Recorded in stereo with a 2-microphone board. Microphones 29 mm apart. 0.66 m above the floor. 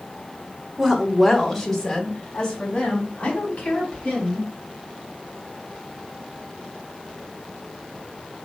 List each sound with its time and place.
0.8 s a woman speaking: 10° right (ahead or behind), 1.9 m; by 4.5 s 45° left (ahead or behind), 5 m